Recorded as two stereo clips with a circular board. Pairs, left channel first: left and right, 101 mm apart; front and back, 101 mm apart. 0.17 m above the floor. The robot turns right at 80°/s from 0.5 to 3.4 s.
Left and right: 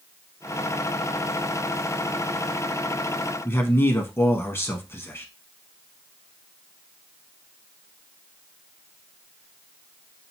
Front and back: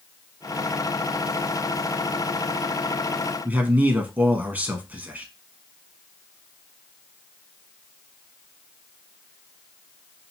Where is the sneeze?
No sneeze in this recording.